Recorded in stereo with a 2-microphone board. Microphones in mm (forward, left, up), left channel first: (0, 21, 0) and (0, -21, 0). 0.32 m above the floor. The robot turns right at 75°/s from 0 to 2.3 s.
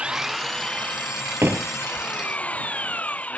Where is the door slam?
80° right; by 2.1 s 30° right (ahead or behind).